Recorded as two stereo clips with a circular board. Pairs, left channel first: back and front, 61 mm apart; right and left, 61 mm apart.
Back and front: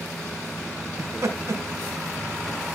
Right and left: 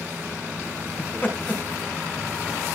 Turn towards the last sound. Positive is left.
turn(degrees=-30)